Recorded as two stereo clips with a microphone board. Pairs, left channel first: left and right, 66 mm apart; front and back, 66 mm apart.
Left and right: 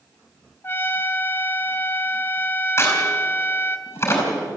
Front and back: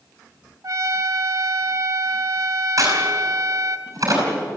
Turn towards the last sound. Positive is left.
turn(degrees=140)